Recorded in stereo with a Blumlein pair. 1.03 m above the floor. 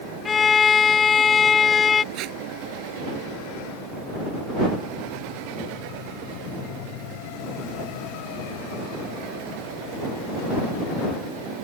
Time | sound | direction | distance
0.2 | a violin | 20° left | ?
2.1 | tape being pulled | 40° right | ?